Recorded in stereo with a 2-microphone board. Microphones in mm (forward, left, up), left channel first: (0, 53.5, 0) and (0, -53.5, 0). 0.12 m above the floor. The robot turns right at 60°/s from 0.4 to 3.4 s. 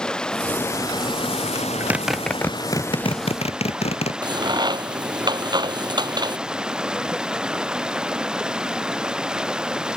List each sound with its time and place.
0.0 s running water: 5° left; by 10.0 s 175° right
1.6 s a zipper: 35° right (ahead or behind); by 4.1 s 75° left (ahead or behind)
4.2 s a crack: 45° right (ahead or behind)